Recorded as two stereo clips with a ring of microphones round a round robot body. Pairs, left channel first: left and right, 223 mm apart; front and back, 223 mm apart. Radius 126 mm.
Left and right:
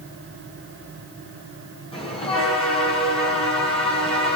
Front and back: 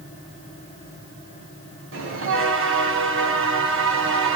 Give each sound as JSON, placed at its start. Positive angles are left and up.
{"t": 1.9, "sound": "a bell", "azimuth_deg": 155, "distance_m": 3.0}